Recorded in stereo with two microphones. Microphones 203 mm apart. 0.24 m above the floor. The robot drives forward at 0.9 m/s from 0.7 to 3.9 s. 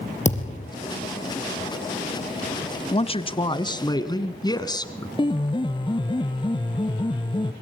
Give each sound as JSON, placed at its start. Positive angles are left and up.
{"t": 0.2, "sound": "a thud", "side_deg": 35, "distance_m": 4.5}
{"t": 2.9, "sound": "a man speaking", "side_deg": 30, "distance_m": 1.3}
{"t": 5.2, "sound": "a piano", "side_deg": 25, "distance_m": 1.3}